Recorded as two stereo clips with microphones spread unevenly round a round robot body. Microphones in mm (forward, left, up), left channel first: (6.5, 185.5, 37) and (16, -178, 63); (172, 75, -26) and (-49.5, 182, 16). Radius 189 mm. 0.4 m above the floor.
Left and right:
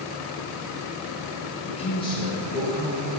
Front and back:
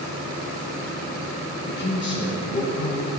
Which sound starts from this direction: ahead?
A man speaking, at 1.7 s.